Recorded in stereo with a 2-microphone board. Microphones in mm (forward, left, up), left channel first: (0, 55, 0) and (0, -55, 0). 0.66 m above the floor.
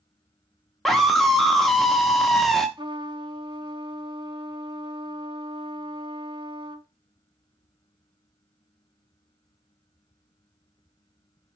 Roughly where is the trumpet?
Right.